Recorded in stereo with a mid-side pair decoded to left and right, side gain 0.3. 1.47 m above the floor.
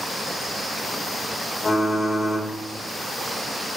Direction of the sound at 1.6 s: 40° left.